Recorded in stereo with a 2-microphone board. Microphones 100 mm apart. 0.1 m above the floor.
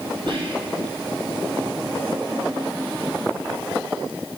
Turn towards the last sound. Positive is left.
turn(degrees=-55)  # may be behind; listen again after turning